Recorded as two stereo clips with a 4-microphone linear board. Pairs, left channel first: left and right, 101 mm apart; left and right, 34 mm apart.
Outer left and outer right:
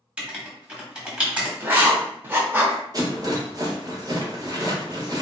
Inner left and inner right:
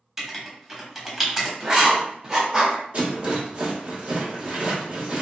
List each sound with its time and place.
0.2 s writing: 10° right (ahead or behind), 1.0 m
1.6 s writing: 20° right (ahead or behind), 0.8 m
2.9 s a rattle: 35° right (ahead or behind), 0.9 m